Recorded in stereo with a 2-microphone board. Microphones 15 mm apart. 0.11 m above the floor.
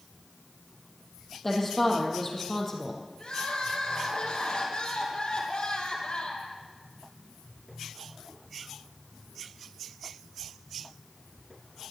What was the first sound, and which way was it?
A woman speaking, 10° left (ahead or behind).